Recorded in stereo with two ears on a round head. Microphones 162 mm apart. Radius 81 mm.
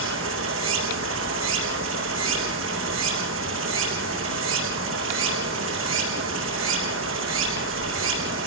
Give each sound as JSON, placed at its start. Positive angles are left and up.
{"t": 0.0, "sound": "running water", "side_deg": -80, "distance_m": 5.0}